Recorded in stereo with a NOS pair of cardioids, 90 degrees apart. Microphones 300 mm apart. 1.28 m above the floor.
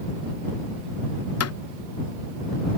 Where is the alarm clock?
No alarm clock in this recording.